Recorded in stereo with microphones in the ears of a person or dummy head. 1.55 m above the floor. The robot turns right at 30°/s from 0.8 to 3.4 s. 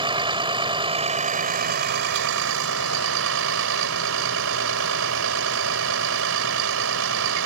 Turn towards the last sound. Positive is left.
turn(degrees=-75)